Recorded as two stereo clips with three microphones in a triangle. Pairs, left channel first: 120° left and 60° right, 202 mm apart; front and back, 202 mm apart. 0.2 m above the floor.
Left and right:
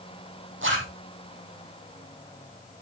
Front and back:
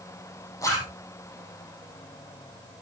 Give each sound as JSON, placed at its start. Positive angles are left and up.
{"t": 0.6, "sound": "a zipper", "azimuth_deg": -75, "distance_m": 4.5}